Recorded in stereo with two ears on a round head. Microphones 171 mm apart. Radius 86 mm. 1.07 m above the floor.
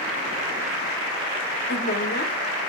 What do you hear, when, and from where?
1.7 s a woman speaking: 45° left (ahead or behind), 2.0 m